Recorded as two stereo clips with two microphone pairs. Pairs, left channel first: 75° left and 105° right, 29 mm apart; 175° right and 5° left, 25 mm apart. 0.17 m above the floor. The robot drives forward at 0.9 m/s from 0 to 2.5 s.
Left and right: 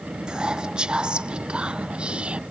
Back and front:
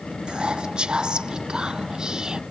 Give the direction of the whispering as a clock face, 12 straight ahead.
1 o'clock.